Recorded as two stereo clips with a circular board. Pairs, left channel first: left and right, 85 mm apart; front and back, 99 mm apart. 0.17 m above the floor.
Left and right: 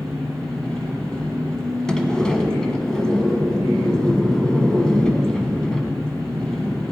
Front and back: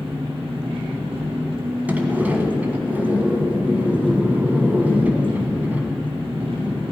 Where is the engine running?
170° left, 3.5 m.